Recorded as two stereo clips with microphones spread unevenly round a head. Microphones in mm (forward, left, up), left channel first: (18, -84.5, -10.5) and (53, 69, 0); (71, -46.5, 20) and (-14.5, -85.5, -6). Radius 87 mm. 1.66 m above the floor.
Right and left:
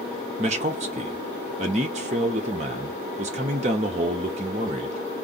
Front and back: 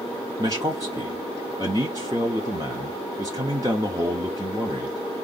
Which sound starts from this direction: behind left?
A man speaking, at 0.4 s.